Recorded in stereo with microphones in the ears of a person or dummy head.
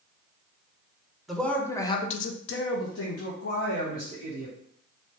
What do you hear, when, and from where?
1.3 s a man speaking: centre (ahead or behind), 0.9 m; by 4.5 s 50° left (ahead or behind), 1.7 m